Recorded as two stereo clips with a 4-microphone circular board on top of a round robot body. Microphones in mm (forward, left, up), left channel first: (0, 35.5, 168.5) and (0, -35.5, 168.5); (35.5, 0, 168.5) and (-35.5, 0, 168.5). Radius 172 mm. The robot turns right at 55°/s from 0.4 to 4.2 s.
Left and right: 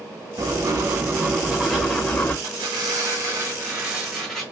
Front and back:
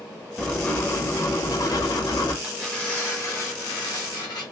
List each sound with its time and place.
0.4 s writing: 75° right, 1.0 m; by 2.3 s 30° left, 1.0 m
2.4 s tearing paper: 95° right, 1.4 m; by 4.4 s 5° left, 1.4 m